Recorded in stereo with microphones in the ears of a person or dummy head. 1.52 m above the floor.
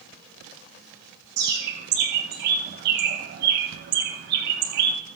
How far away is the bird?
About 2 m.